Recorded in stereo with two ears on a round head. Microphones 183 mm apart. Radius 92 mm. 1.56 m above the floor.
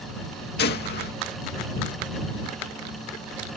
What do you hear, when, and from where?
0.6 s a gunshot: 55° left (ahead or behind)